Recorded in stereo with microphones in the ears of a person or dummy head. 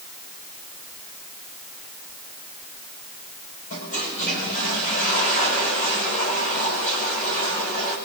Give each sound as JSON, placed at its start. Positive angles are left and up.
{"t": 3.7, "sound": "a toilet flushing", "side_deg": 40, "distance_m": 5.5}